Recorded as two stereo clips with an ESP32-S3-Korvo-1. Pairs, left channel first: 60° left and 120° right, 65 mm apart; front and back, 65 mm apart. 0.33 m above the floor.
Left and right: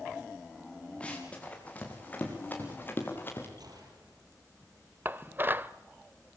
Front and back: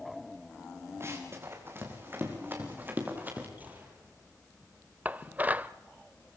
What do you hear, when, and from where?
1.0 s running footsteps: 135° left, 6 m; by 3.5 s 115° left, 6.5 m
3.6 s a gunshot: 115° right, 6 m
5.0 s dishes clattering: 140° right, 0.6 m